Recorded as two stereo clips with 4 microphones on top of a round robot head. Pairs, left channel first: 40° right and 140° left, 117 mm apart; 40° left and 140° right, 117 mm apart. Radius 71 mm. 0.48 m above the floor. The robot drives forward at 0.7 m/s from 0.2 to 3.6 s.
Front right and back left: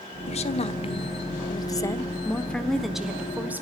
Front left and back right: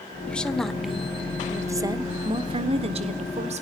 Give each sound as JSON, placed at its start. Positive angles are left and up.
{"t": 0.3, "sound": "a woman speaking", "azimuth_deg": -40, "distance_m": 1.6}